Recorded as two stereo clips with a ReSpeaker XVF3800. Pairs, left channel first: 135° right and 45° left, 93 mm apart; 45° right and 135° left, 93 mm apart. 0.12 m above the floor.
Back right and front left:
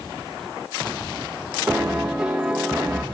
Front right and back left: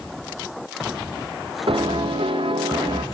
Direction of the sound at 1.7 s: 130° left.